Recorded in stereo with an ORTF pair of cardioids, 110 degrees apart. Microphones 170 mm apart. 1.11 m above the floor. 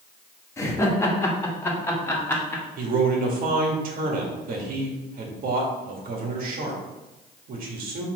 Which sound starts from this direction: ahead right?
A man speaking, at 2.8 s.